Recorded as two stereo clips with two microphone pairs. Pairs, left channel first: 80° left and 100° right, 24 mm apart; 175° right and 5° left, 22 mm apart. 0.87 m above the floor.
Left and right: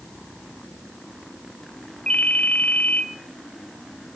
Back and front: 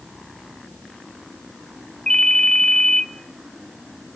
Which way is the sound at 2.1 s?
130° left.